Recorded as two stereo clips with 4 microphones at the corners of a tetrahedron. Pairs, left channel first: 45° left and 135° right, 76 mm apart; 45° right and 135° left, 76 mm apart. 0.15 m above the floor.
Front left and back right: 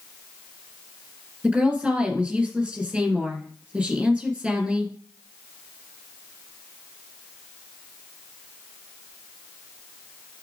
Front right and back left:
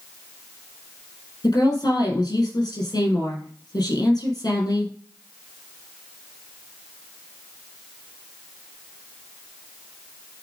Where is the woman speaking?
65° right, 3.5 m.